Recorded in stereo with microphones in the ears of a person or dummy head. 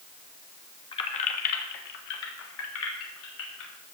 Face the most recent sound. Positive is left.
turn(degrees=80)